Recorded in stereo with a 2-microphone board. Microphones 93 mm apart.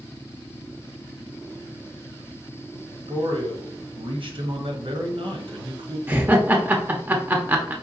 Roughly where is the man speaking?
Right.